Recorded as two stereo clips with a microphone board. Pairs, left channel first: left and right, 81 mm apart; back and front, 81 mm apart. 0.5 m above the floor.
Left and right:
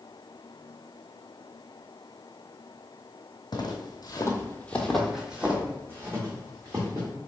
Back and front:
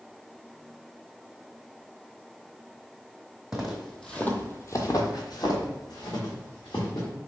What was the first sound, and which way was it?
Footsteps, 80° left.